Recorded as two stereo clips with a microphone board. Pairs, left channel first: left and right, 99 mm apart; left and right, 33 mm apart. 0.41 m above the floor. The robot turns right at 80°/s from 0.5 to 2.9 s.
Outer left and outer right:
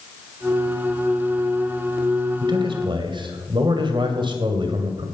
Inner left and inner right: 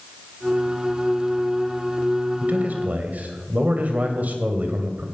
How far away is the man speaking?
About 2.5 m.